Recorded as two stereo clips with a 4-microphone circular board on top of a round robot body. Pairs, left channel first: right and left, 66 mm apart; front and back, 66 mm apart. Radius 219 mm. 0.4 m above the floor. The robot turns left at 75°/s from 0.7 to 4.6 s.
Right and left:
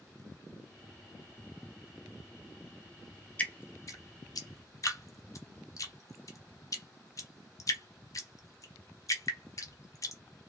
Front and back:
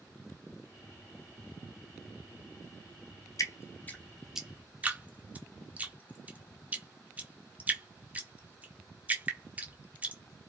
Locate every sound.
3.4 s dripping: 25° right, 0.7 m; by 10.2 s 115° right, 0.7 m